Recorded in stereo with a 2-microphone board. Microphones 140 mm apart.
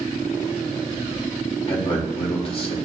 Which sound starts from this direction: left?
A man speaking, at 1.7 s.